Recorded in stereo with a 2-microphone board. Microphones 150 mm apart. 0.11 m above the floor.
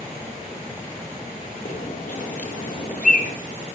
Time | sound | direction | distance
1.6 | a bird | 65° left (ahead or behind) | 3 m